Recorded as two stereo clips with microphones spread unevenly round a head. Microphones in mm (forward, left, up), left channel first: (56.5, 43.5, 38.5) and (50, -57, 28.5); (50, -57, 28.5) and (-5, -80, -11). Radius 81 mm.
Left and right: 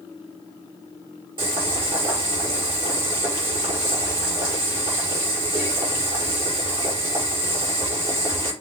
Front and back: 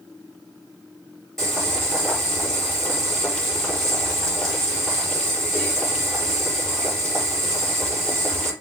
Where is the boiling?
55° right, 5.5 m.